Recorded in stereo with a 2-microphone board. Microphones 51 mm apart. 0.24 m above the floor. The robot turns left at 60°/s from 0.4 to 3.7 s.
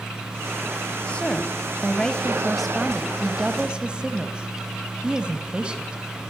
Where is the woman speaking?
20° left (ahead or behind), 1.5 m; by 6.0 s 20° right (ahead or behind), 1.5 m.